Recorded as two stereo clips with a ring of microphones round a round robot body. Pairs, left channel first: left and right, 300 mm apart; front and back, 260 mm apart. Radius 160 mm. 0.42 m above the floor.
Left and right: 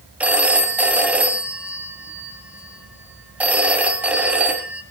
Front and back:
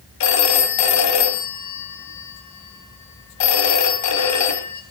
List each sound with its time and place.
0.2 s a phone ringing: 5° right, 2 m